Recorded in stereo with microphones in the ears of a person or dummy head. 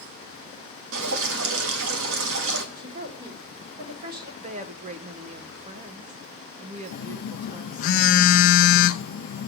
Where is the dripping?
85° right, 1.6 m.